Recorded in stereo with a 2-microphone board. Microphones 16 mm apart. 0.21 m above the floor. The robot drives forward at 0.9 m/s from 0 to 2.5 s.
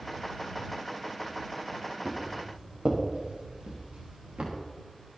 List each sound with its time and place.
2.0 s footsteps: 80° right, 7 m